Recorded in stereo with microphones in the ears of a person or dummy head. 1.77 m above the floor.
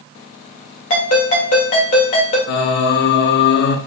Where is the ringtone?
45° left (ahead or behind), 1.9 m.